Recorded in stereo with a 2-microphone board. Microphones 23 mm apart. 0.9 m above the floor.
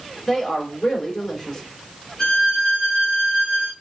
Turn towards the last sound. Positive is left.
turn(degrees=30)  # may be behind; listen again after turning